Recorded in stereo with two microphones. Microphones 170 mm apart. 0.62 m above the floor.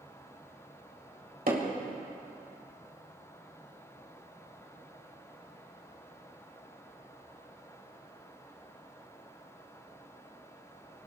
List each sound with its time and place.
1.5 s hammering: 65° right (ahead or behind), 2.5 m